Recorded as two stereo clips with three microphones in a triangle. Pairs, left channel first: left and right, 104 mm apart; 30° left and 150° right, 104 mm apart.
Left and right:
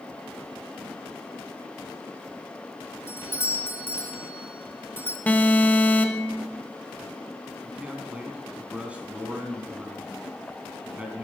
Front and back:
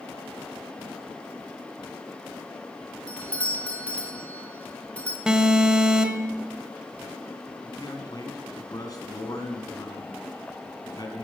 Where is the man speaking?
15° right, 3 m.